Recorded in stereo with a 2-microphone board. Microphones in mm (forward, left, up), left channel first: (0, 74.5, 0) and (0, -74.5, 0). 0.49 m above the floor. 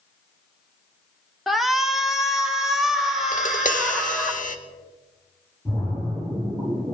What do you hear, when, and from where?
1.5 s a shout: centre (ahead or behind), 0.7 m; by 4.3 s 5° right (ahead or behind), 2.5 m
3.3 s tapping: 65° left (ahead or behind), 0.7 m
5.7 s a splash: 5° left (ahead or behind), 5 m